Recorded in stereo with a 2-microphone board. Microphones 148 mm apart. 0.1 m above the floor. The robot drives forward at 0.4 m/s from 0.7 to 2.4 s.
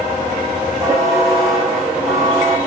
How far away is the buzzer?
About 4.5 m.